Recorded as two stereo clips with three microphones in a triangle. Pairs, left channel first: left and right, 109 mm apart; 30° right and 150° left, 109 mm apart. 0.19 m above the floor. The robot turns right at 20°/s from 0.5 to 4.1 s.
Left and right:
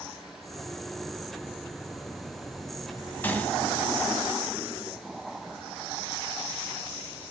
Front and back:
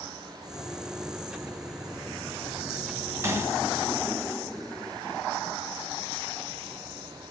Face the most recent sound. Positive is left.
turn(degrees=155)